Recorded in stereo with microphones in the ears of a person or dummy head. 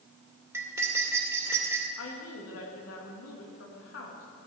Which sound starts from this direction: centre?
Cutlery clinking, at 0.5 s.